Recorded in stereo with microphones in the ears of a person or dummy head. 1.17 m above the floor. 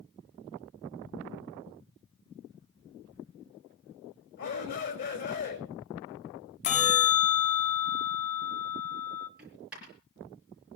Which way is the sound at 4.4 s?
55° left (ahead or behind).